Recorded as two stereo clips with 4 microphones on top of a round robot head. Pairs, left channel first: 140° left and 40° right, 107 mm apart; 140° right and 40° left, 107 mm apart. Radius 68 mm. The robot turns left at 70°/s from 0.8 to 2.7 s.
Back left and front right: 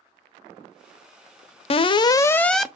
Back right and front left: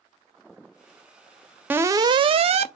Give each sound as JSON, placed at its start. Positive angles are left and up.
{"t": 1.7, "sound": "an alarm", "azimuth_deg": 115, "distance_m": 0.5}